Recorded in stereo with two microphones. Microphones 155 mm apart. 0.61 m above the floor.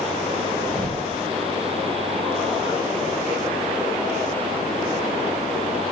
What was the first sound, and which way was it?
A thud, 30° right (ahead or behind).